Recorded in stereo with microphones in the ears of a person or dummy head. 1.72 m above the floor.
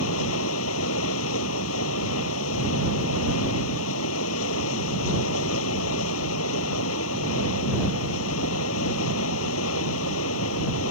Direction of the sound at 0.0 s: 80° left.